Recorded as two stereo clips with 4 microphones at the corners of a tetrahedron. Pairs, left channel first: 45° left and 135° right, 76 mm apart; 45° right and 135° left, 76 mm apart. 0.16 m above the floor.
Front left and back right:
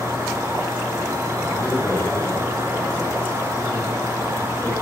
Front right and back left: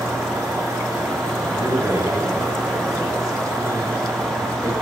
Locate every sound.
0.0 s an insect: 170° right, 3 m
1.5 s a man speaking: 110° left, 3 m